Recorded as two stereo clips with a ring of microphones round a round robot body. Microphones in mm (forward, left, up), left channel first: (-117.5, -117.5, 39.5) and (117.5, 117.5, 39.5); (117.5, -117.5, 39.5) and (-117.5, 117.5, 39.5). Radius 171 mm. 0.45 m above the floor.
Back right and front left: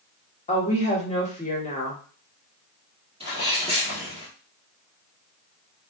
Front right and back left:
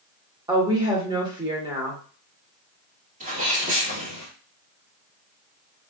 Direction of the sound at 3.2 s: 100° left.